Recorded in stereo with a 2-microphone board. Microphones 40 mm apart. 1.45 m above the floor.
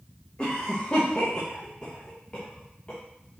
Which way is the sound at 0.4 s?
25° left (ahead or behind).